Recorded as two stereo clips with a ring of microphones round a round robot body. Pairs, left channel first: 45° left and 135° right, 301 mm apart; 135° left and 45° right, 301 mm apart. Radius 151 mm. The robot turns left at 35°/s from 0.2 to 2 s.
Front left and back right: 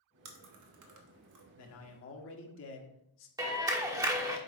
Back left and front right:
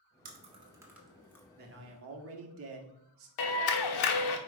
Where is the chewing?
105° right, 1.3 m; by 1.4 s 145° right, 1.3 m.